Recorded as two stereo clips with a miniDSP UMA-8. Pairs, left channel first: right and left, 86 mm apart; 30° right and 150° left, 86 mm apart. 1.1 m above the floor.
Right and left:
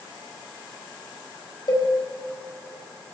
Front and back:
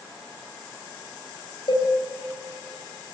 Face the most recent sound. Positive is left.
turn(degrees=-55)